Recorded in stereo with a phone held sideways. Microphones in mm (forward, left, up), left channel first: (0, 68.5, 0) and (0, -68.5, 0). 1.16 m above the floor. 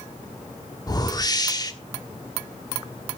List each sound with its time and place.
0.9 s a whoosh: 30° left (ahead or behind), 1.2 m